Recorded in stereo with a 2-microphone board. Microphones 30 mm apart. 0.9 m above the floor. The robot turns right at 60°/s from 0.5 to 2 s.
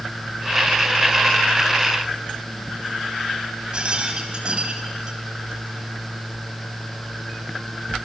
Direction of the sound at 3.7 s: 30° right (ahead or behind).